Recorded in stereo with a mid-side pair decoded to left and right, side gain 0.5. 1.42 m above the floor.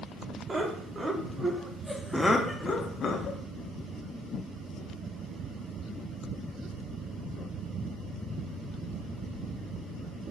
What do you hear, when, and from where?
0.5 s laughter: 30° right, 1.3 m; by 3.4 s 65° left, 0.7 m